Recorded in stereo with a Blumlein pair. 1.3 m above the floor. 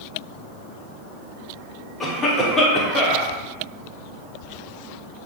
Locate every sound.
2.0 s a cough: 15° left, 0.9 m